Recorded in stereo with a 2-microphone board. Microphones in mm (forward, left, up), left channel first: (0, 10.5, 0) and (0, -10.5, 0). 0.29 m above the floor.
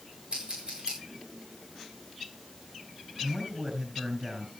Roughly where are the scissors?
Right.